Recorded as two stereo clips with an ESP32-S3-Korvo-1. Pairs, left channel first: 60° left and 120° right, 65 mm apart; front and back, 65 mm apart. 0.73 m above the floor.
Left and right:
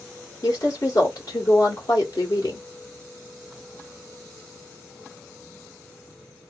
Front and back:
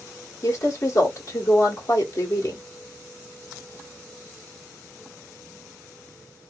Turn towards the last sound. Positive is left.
turn(degrees=30)